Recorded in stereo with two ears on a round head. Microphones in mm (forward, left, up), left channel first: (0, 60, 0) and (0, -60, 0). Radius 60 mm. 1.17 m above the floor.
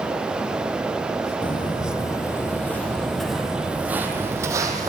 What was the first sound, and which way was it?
Footsteps, 40° left (ahead or behind).